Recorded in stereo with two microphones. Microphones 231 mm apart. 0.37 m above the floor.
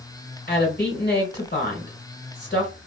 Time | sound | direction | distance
0.5 | a woman speaking | 40° left (ahead or behind) | 1.7 m